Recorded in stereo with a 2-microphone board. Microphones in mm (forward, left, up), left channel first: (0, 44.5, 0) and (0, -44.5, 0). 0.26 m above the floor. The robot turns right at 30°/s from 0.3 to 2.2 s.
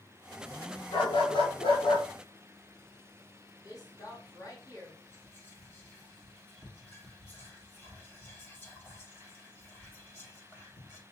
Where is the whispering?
20° left (ahead or behind), 1.6 m.